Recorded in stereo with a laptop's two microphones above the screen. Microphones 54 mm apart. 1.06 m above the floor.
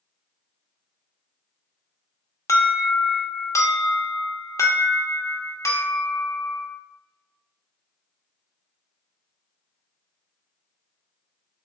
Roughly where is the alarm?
Left.